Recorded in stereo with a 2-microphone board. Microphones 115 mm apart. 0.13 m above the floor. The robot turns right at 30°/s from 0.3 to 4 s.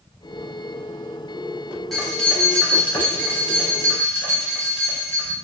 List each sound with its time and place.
1.9 s keys jangling: centre (ahead or behind), 1.2 m; by 5.3 s 25° left (ahead or behind), 1.2 m